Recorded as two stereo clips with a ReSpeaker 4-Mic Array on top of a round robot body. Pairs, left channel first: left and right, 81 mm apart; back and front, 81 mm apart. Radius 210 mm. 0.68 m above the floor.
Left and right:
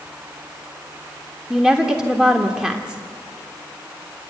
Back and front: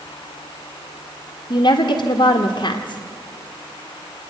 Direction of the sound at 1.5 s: 175° left.